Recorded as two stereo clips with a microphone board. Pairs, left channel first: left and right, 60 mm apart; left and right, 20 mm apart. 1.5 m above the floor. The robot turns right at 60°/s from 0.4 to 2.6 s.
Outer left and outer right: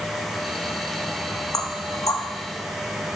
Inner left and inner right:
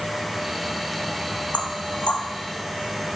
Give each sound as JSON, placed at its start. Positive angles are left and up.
{"t": 1.5, "sound": "knocking", "side_deg": 75, "distance_m": 1.7}